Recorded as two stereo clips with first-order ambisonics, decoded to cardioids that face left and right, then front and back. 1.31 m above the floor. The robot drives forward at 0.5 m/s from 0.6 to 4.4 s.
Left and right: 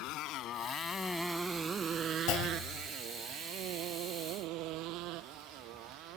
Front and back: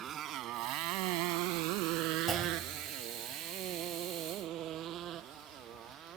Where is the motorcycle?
120° left; by 6.2 s 120° right.